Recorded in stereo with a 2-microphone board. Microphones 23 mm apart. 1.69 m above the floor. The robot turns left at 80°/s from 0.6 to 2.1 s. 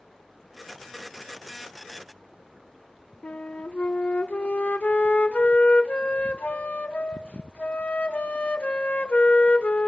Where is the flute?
60° left (ahead or behind), 0.7 m.